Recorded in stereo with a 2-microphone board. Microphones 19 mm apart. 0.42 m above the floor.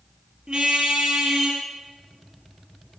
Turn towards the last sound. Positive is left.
turn(degrees=-50)  # may be behind; listen again after turning